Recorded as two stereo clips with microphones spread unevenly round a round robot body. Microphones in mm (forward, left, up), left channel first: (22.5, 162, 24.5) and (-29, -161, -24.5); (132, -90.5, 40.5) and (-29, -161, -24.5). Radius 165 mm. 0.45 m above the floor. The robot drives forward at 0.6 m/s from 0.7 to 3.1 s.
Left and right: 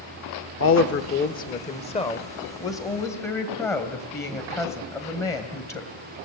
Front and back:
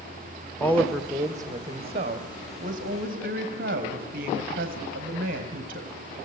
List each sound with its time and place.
0.6 s a woman speaking: 130° left, 0.9 m; by 5.9 s 165° left, 1.9 m